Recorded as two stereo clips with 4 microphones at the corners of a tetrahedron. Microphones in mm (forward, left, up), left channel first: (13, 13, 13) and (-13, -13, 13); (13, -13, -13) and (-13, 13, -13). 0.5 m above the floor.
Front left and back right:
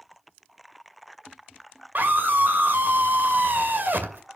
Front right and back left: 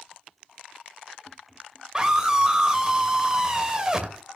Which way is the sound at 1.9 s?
155° right.